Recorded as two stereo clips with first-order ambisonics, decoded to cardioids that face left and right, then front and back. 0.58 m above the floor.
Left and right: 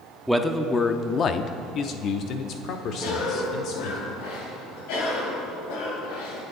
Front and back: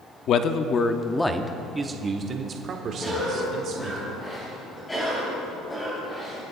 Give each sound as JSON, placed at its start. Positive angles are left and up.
{"t": 0.3, "sound": "a man speaking", "azimuth_deg": -5, "distance_m": 0.7}
{"t": 3.0, "sound": "a cough", "azimuth_deg": 80, "distance_m": 3.5}